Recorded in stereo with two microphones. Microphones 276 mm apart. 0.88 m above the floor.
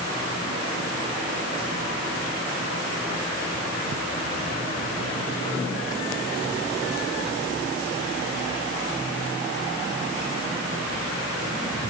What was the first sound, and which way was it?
Only background noise.